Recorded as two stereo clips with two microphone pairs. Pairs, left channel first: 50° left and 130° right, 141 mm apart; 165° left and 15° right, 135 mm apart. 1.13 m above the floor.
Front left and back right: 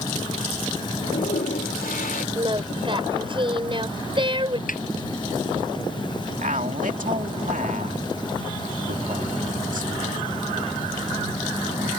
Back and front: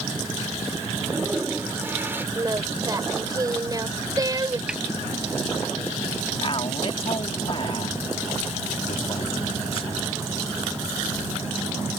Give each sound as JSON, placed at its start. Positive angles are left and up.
{"t": 0.9, "sound": "a toilet flushing", "azimuth_deg": 60}
{"t": 2.4, "sound": "singing", "azimuth_deg": -80}
{"t": 4.7, "sound": "a snare drum", "azimuth_deg": 70}
{"t": 6.4, "sound": "a man speaking", "azimuth_deg": -150}